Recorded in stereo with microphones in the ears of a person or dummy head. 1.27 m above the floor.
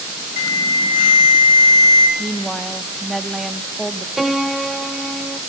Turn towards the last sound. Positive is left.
turn(degrees=0)  # may be behind; listen again after turning